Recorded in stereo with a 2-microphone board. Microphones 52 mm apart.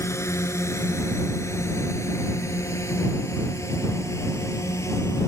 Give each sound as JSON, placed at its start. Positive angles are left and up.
{"t": 0.0, "sound": "a drone", "side_deg": 65}